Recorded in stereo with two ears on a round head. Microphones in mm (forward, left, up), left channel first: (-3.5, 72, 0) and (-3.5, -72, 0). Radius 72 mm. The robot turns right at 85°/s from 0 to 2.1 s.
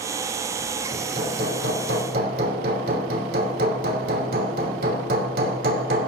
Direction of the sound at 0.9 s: 160° right.